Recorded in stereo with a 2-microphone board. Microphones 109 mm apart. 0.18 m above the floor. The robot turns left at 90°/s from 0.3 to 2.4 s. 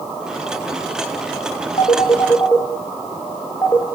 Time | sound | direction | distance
1.8 | a phone ringing | 70° left (ahead or behind) | 2.5 m